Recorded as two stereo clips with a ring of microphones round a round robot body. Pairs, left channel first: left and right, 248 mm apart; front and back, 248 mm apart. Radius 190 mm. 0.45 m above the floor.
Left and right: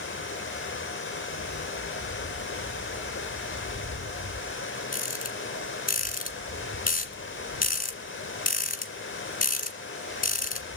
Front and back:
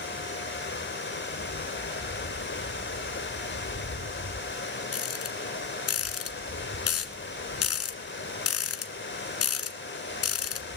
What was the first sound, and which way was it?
Running water, 45° left.